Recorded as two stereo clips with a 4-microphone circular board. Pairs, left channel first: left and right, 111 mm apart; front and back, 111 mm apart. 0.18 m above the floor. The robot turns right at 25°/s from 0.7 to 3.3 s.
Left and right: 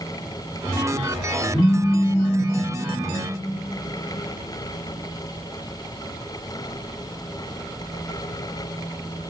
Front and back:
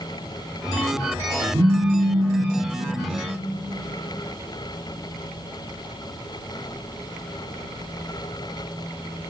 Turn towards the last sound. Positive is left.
turn(degrees=-145)